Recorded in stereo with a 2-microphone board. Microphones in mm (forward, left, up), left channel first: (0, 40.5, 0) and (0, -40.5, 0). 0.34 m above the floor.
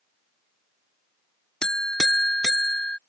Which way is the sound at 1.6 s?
10° left (ahead or behind).